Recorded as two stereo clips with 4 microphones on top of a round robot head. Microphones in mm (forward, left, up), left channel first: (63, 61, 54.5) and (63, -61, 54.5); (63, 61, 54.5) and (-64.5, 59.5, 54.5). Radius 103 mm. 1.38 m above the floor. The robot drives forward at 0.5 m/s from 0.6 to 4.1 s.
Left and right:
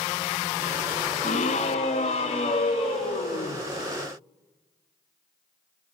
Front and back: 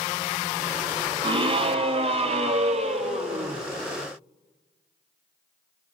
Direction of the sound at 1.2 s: 135° left.